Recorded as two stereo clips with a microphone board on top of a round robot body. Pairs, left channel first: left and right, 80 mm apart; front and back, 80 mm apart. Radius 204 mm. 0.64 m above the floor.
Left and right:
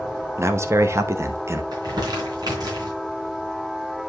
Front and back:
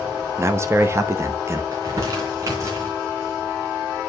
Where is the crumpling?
130° right, 3 m.